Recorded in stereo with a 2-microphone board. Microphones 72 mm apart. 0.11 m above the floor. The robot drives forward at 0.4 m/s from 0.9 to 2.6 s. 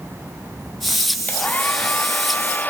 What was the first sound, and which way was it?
A hair dryer, 20° left (ahead or behind).